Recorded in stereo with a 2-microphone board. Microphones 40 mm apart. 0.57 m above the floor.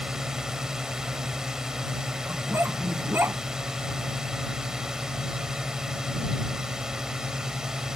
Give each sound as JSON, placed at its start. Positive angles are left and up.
{"t": 0.0, "sound": "a drone", "side_deg": -15}
{"t": 2.3, "sound": "a dog barking", "side_deg": -70}